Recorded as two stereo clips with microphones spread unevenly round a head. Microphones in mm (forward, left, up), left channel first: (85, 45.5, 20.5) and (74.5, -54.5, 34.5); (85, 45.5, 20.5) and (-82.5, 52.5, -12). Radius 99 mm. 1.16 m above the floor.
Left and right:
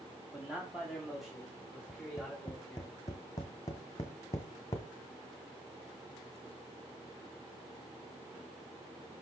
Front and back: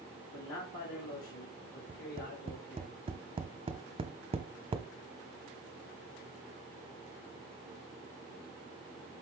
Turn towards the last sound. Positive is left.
turn(degrees=135)